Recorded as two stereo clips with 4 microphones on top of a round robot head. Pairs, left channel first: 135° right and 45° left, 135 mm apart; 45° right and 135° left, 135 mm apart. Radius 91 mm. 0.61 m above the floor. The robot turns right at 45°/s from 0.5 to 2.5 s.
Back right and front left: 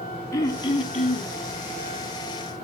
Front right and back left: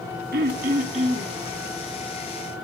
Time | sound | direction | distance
0.3 | throat clearing | 160° left | 0.7 m